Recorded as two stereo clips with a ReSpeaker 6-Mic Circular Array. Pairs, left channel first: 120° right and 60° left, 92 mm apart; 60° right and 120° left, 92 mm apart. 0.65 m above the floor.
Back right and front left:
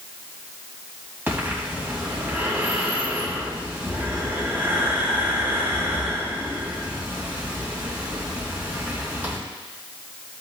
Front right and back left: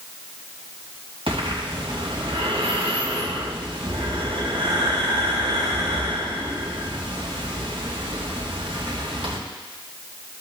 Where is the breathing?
130° left, 3 m.